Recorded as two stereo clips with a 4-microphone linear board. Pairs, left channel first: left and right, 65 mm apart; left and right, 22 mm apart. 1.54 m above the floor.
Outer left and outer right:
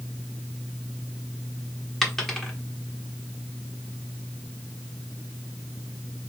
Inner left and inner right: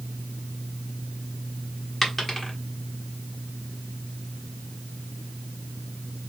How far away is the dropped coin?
About 1.2 m.